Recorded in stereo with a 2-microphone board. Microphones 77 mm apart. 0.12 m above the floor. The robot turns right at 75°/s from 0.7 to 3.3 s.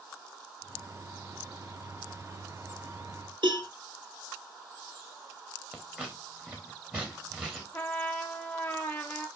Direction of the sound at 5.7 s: 20° right (ahead or behind).